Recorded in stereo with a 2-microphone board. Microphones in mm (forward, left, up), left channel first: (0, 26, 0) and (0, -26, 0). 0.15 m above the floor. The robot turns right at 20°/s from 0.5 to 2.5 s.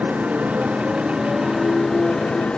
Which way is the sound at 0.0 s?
25° right.